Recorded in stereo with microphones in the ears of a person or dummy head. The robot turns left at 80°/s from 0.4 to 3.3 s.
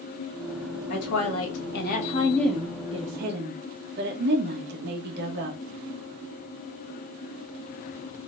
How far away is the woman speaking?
About 1.2 m.